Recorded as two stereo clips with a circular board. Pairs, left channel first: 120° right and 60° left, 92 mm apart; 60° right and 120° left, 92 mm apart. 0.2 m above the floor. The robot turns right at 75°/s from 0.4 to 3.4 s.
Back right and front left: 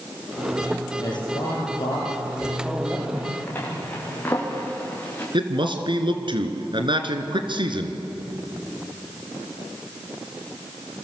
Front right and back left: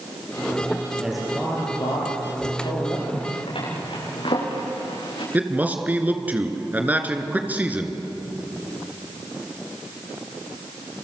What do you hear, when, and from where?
1.0 s a man speaking: 165° right, 5.5 m; by 3.0 s 10° right, 5.5 m
3.1 s a zipper: 70° right, 8.5 m; by 5.2 s 50° right, 8.5 m
5.3 s a man speaking: 50° left, 3 m